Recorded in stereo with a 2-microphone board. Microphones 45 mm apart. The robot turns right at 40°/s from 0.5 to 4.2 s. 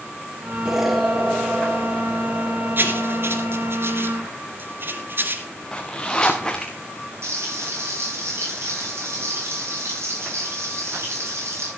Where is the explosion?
15° right, 3 m; by 3.8 s 110° left, 3 m.